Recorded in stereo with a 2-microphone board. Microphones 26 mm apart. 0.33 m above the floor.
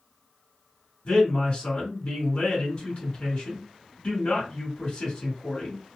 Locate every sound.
1.1 s a man speaking: 45° left (ahead or behind), 2 m